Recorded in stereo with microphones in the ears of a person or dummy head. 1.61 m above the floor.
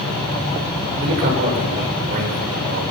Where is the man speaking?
55° right (ahead or behind), 6.5 m.